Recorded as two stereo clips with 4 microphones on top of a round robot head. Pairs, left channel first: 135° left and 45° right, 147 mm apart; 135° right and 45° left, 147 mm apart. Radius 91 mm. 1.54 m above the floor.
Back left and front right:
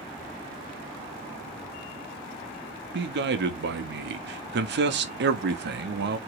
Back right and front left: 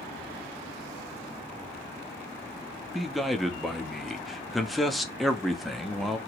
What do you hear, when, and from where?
2.9 s a man speaking: 45° right, 0.9 m